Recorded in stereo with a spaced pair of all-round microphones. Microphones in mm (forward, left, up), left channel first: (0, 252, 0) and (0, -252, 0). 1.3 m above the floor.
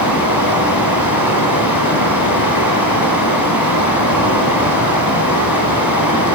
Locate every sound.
0.0 s running water: 40° left (ahead or behind), 2 m